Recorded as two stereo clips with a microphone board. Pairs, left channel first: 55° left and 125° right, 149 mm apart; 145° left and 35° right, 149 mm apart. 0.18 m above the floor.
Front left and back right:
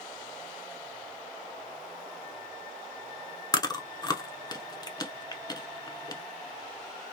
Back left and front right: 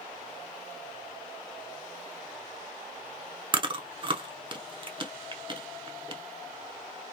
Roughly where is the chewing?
Ahead.